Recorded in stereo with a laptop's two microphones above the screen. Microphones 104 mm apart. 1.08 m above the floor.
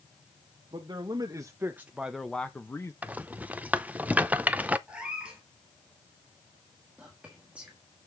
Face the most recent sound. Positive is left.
turn(degrees=-10)  # may be behind; listen again after turning